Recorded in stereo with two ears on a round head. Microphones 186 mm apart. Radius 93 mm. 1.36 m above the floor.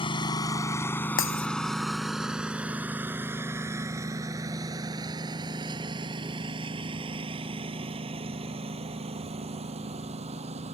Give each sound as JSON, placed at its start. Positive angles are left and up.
{"t": 0.0, "sound": "a lawn mower", "side_deg": 25}
{"t": 1.2, "sound": "breaking glass", "side_deg": 65}